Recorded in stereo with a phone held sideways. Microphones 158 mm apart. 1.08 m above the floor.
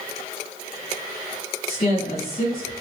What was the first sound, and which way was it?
A woman speaking, 60° left (ahead or behind).